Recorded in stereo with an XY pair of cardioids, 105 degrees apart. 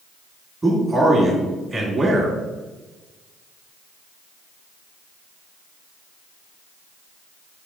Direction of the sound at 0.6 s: 25° right.